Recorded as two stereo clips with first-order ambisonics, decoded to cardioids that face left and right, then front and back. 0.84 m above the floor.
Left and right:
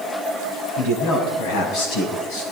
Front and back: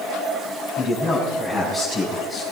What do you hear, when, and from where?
0.8 s a man speaking: 90° left, 5.5 m; by 2.4 s 80° left, 7 m